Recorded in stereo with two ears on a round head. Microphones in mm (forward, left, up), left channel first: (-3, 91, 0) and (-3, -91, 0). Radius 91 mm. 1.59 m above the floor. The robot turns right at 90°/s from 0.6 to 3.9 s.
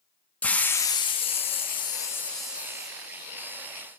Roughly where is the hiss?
Centre.